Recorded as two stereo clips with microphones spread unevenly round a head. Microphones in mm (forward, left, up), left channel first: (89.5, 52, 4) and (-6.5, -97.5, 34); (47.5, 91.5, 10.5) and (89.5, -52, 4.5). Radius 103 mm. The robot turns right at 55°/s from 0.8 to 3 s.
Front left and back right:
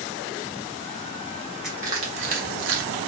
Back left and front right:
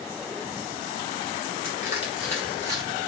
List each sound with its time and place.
1.6 s crushing: 150° left, 0.8 m; by 2.9 s 140° right, 0.8 m